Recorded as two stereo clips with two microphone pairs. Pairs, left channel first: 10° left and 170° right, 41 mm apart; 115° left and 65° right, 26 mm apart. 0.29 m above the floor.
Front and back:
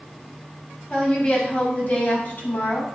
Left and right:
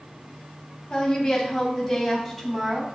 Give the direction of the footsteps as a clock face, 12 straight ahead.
I don't hear footsteps.